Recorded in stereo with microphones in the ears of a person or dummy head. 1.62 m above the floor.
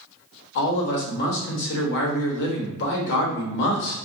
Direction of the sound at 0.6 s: 65° left (ahead or behind).